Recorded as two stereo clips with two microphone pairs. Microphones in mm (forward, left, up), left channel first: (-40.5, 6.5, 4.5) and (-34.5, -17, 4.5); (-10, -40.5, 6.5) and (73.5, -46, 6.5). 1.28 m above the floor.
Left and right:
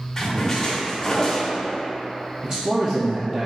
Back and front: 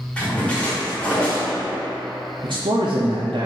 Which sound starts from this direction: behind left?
A splash, at 0.2 s.